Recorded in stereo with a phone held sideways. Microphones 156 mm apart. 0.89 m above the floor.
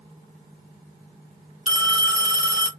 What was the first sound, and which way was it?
A phone ringing, 40° right (ahead or behind).